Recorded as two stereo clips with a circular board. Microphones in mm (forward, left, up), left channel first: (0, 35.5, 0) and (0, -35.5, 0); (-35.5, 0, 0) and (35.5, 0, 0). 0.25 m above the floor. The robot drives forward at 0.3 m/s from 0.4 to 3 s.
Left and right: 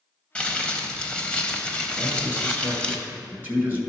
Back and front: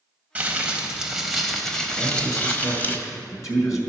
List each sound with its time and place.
0.3 s crumpling: 35° left, 0.9 m; by 3.0 s 155° left, 1.0 m
2.0 s a man speaking: 145° right, 1.9 m; by 3.8 s 150° right, 2 m